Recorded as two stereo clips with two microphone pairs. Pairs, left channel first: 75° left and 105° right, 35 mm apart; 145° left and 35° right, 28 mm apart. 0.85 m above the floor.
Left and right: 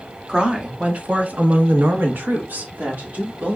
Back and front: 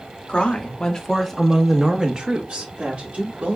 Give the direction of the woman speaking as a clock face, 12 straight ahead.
6 o'clock.